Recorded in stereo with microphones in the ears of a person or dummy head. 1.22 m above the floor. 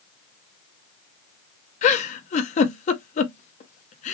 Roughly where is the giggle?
Left.